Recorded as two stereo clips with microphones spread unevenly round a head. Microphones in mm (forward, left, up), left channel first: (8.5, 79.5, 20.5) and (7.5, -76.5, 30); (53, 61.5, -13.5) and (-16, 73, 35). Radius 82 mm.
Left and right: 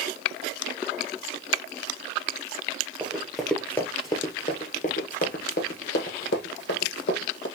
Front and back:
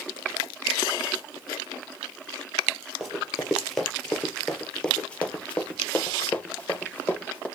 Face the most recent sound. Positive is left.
turn(degrees=75)